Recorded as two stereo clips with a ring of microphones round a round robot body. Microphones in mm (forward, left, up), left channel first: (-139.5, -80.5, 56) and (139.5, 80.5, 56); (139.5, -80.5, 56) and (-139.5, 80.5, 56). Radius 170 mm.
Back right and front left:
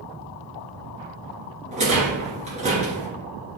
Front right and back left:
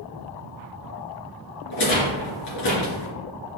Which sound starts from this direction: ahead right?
A rattle, at 1.7 s.